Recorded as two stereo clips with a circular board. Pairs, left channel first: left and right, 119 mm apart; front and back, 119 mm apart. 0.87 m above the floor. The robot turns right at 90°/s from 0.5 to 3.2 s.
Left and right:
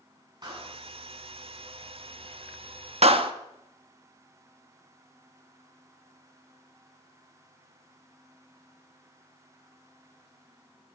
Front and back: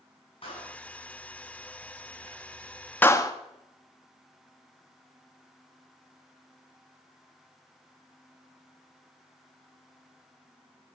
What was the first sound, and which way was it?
A clap, 35° right.